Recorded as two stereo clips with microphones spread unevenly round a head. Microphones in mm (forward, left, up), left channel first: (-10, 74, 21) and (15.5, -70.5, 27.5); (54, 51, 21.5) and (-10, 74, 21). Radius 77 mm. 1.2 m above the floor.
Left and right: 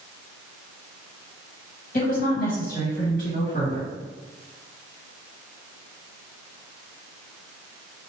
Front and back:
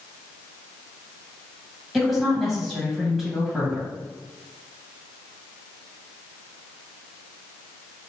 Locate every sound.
1.9 s a woman speaking: 65° left, 1.4 m